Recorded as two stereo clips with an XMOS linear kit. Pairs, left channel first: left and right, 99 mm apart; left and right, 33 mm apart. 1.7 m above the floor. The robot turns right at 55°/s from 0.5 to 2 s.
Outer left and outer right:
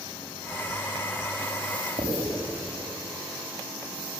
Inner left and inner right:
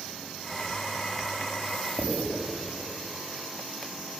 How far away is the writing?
About 7.5 m.